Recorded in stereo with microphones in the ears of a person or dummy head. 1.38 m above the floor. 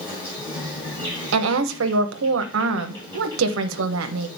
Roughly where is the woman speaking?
Right.